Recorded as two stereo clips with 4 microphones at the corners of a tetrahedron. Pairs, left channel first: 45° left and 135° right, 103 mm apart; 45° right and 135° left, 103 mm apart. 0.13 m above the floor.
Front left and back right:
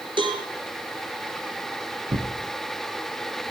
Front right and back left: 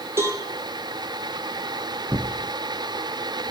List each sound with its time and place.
0.2 s a cowbell: 165° right, 2 m
2.1 s tearing paper: 150° right, 3 m